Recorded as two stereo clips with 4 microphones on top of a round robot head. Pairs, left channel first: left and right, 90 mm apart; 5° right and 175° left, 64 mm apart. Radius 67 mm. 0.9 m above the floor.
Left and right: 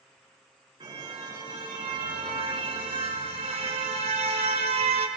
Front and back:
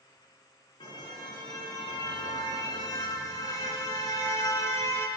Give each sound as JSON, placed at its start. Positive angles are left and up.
{"t": 0.8, "sound": "a car horn", "azimuth_deg": -35, "distance_m": 5.0}